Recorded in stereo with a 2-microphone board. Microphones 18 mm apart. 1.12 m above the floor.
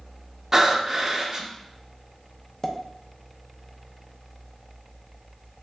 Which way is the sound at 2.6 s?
20° left (ahead or behind).